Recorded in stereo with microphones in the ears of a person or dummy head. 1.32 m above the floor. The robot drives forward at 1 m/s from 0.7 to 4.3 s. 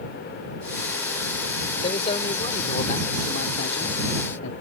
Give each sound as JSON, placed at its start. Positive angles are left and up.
{"t": 1.8, "sound": "a man speaking", "side_deg": 35}